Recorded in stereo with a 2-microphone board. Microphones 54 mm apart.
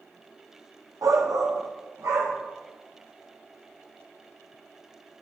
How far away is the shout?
About 0.9 m.